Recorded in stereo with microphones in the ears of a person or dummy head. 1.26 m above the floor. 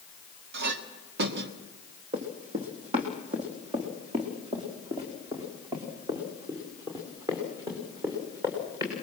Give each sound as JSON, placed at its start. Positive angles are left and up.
{"t": 0.5, "sound": "a clink", "side_deg": -60, "distance_m": 1.8}
{"t": 2.1, "sound": "running footsteps", "side_deg": -35, "distance_m": 3.0}